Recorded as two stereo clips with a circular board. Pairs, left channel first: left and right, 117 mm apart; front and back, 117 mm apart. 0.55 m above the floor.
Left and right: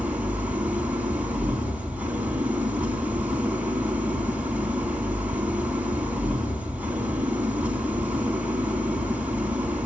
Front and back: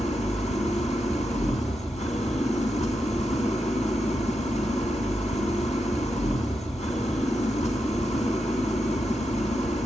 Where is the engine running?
15° right, 3 m.